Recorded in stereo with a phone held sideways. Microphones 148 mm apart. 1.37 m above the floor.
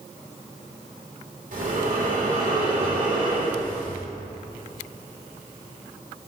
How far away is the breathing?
About 2.5 m.